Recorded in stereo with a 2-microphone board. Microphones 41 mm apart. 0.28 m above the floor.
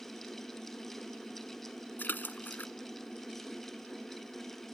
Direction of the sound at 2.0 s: 50° left (ahead or behind).